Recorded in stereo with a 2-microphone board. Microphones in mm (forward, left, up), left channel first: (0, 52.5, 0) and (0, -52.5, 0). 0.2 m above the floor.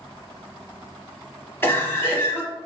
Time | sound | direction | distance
1.6 | a cough | 20° left (ahead or behind) | 1.0 m